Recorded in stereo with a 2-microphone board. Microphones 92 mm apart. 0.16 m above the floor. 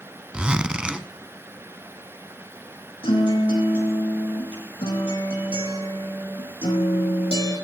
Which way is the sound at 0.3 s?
10° right (ahead or behind).